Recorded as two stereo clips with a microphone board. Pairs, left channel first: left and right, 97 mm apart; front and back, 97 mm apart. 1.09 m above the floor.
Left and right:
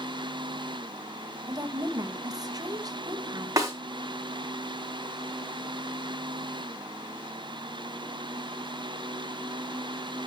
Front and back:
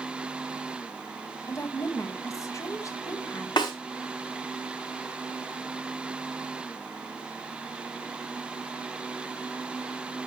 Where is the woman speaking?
50° right, 1.3 m.